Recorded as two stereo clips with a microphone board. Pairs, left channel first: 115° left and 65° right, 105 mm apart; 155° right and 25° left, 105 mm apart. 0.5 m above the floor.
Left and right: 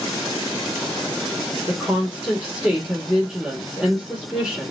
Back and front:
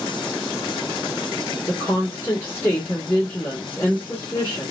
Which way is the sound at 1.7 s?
135° right.